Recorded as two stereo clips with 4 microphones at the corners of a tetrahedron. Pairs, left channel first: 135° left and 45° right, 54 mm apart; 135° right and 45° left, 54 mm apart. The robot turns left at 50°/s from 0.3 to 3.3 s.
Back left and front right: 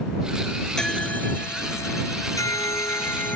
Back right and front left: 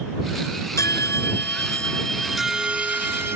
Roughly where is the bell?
Behind right.